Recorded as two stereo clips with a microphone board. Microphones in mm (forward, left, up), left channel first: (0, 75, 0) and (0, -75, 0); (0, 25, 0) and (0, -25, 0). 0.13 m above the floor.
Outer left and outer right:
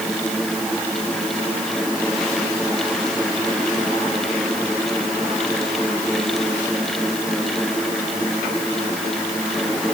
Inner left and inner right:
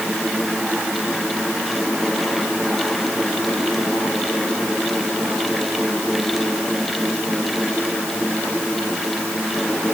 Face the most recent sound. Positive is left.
No sound to turn to.